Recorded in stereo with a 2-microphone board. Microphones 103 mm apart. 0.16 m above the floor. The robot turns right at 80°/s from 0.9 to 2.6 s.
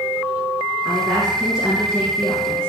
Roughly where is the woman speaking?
Ahead right.